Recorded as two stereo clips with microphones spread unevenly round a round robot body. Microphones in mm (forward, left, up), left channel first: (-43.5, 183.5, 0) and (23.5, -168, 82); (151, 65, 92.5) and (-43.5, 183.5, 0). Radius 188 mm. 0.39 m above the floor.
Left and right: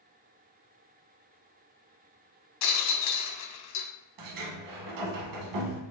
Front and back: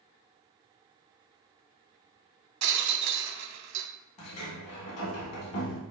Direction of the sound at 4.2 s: 40° right.